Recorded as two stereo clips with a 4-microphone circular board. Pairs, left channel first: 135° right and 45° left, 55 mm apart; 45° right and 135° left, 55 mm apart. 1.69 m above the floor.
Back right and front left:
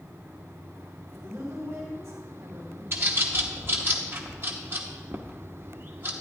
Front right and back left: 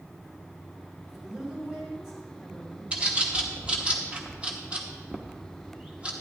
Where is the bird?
75° left, 1.0 m.